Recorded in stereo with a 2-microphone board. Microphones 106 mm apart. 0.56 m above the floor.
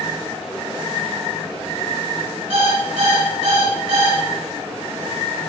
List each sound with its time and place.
2.5 s an alarm clock: 55° right (ahead or behind), 0.9 m